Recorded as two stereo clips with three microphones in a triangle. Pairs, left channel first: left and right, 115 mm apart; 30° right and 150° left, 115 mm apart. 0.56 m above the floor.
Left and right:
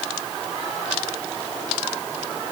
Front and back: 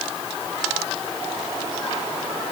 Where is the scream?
I don't hear a scream.